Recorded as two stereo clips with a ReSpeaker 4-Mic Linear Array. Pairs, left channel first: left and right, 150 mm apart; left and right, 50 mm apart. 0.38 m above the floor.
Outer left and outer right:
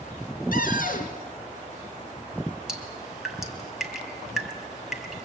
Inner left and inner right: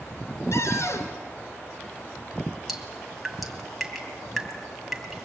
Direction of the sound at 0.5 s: 70° left (ahead or behind).